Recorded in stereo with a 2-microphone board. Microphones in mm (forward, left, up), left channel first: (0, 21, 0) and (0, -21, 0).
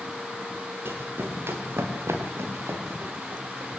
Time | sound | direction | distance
0.8 | running footsteps | 60° right (ahead or behind) | 5 m